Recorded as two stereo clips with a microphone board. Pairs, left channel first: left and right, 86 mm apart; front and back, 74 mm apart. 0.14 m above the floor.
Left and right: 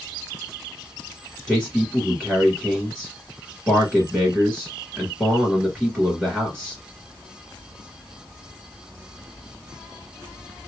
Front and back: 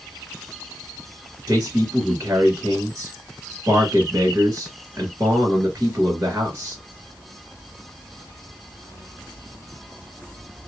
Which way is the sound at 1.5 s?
Straight behind.